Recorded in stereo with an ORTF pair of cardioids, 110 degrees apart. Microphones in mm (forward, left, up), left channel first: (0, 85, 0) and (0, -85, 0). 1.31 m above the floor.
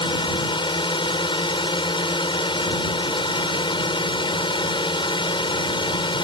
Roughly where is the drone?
Ahead left.